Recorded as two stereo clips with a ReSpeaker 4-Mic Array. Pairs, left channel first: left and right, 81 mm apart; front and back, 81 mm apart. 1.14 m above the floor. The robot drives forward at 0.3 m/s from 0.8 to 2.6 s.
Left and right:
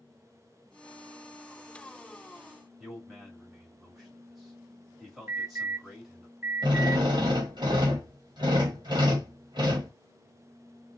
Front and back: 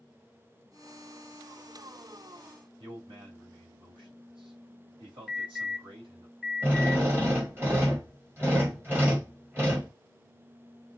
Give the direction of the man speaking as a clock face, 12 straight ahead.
6 o'clock.